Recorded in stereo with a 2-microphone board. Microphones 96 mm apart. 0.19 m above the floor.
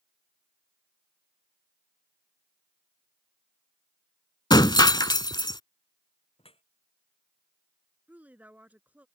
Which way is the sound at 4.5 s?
50° left (ahead or behind).